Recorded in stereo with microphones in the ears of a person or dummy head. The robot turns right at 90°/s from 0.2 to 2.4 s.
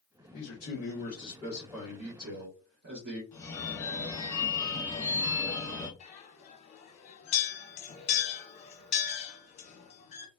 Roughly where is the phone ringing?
Centre.